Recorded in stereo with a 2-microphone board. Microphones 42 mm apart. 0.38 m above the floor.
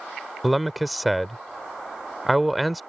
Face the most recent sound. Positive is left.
turn(degrees=0)  # may be behind; listen again after turning